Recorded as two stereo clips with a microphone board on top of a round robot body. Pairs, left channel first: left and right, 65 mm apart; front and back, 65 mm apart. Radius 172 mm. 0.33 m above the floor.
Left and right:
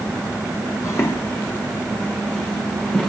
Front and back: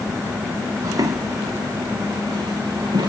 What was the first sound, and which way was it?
Footsteps, 140° left.